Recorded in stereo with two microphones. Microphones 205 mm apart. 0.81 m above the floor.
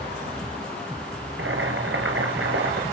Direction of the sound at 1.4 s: 80° right.